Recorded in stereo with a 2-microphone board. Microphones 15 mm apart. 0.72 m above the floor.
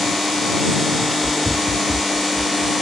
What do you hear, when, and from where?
1.0 s running footsteps: 65° left (ahead or behind); by 2.8 s centre (ahead or behind)